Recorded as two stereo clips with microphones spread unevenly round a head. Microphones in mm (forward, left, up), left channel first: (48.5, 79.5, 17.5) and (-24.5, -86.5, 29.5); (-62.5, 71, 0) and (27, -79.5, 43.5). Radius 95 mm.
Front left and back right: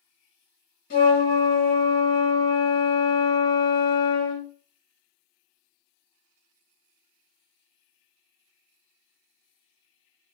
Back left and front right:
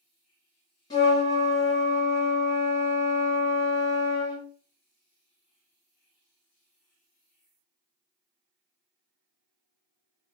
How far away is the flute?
About 1.3 m.